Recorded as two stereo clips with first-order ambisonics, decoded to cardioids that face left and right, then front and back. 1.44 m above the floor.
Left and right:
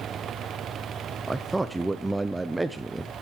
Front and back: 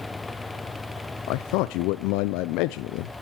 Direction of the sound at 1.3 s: 10° right.